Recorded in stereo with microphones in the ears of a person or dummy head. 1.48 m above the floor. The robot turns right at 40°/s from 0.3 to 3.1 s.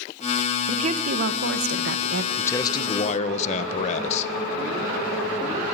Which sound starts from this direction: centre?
A man speaking, at 2.4 s.